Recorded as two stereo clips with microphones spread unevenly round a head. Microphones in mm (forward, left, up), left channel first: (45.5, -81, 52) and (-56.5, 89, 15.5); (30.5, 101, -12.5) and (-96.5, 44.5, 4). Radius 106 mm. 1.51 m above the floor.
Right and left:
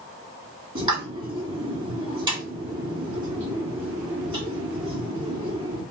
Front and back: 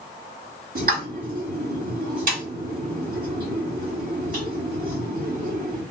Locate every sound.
0.8 s a pop: 170° right, 2 m